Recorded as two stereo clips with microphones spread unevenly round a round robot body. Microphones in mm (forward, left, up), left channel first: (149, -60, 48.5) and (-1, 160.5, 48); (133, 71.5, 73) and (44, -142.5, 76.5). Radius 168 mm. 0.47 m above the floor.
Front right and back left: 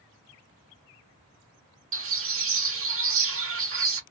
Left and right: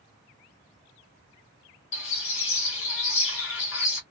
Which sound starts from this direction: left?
A bird, at 1.9 s.